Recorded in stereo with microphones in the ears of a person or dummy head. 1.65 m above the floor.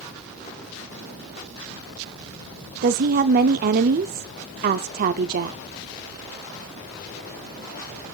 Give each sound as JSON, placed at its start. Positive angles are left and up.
{"t": 2.8, "sound": "a woman speaking", "side_deg": -45, "distance_m": 0.7}